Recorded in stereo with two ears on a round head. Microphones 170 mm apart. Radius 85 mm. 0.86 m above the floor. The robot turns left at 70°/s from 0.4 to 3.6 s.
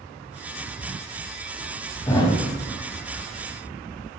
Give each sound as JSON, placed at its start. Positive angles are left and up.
{"t": 2.1, "sound": "a thud", "side_deg": 20, "distance_m": 2.0}